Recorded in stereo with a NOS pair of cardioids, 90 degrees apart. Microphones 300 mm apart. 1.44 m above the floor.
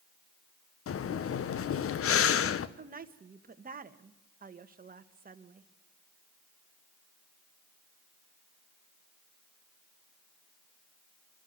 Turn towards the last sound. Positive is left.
turn(degrees=-30)